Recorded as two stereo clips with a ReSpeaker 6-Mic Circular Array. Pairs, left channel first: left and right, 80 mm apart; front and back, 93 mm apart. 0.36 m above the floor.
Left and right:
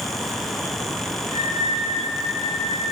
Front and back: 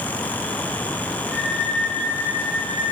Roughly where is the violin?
Right.